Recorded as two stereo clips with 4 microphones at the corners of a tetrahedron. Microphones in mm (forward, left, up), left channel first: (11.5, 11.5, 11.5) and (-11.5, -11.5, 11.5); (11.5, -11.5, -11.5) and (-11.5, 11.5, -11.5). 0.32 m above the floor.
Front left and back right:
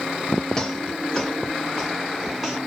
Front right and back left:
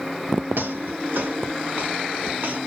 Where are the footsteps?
120° left, 2.5 m; by 2.6 s 155° left, 1.3 m.